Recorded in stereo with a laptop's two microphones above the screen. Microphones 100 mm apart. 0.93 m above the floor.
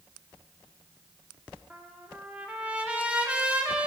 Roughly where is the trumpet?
Centre.